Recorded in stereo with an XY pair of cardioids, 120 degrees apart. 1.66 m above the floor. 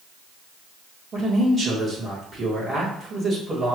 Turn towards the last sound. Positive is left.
turn(degrees=-20)